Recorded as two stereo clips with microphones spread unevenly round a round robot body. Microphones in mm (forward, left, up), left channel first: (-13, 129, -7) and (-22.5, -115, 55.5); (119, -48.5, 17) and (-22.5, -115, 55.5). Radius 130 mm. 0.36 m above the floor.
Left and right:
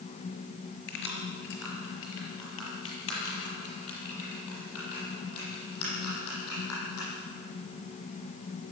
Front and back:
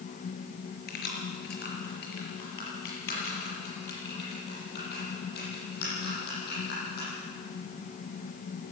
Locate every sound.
0.9 s keys jangling: 40° left, 4.5 m; by 7.1 s 60° left, 11 m